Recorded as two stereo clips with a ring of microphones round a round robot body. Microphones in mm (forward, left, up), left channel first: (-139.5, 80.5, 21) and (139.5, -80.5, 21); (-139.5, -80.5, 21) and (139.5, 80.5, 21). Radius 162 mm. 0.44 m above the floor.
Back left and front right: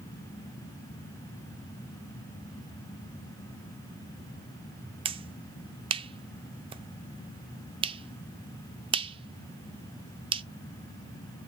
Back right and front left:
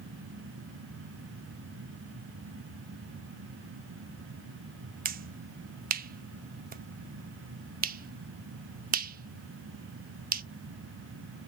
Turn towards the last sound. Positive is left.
turn(degrees=25)